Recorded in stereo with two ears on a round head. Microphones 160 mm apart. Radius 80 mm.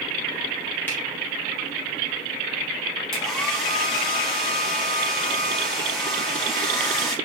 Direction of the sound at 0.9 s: 10° left (ahead or behind).